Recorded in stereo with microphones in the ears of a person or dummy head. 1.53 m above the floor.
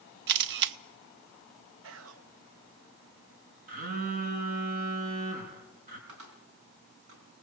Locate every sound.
0.3 s a camera shutter: 60° right (ahead or behind), 0.6 m
1.8 s whispering: 80° right, 1.1 m
3.7 s a phone buzzing: 50° right (ahead or behind), 5 m
6.1 s a cupboard door: 75° right (ahead or behind), 4.5 m